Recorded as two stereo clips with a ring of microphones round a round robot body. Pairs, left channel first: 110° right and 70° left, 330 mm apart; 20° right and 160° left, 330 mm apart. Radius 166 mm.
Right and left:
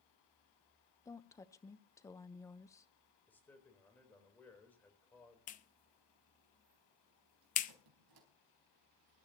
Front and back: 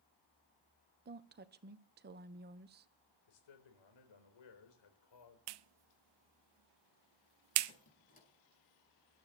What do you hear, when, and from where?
1.1 s a woman speaking: 175° left, 0.8 m
3.3 s a man speaking: 30° right, 4 m
5.5 s a clap: straight behind, 0.6 m
7.7 s a squeak: 45° left, 4 m